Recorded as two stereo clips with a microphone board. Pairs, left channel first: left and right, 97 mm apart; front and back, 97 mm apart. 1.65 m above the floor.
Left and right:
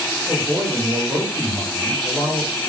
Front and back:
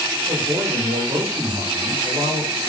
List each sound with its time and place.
0.3 s a man speaking: 160° right, 6.5 m